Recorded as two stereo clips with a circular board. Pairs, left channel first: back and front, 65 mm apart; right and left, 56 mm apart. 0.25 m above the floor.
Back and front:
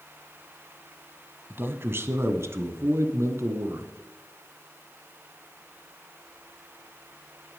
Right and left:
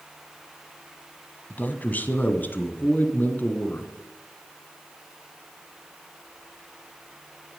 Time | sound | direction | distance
1.5 | a man speaking | 45° right | 1.4 m